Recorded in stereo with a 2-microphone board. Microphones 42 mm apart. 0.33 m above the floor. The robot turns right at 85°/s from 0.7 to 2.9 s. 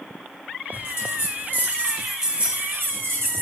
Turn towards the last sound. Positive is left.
turn(degrees=-110)